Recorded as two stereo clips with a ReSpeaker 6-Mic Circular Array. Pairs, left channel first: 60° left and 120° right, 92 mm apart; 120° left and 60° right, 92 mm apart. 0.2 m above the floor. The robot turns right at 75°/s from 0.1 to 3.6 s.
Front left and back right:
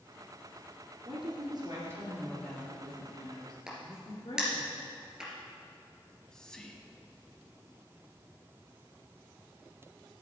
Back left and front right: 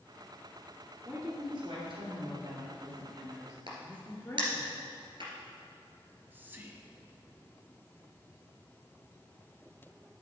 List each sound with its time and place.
1.1 s a woman speaking: 140° right, 2.5 m; by 4.7 s 55° left, 2.5 m
3.7 s a crack: 40° right, 2.5 m
6.0 s whispering: 15° right, 1.1 m